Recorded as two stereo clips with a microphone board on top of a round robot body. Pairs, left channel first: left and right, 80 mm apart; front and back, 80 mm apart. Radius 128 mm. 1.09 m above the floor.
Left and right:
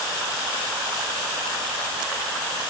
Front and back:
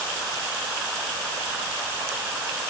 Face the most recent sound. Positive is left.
No sound to turn to.